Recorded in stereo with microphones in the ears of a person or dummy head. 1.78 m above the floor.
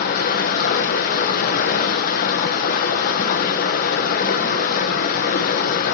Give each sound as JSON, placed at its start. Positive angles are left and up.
{"t": 0.0, "sound": "running water", "side_deg": 50, "distance_m": 1.2}